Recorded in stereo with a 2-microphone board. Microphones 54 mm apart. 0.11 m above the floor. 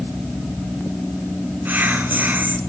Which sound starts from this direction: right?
Whispering, at 1.6 s.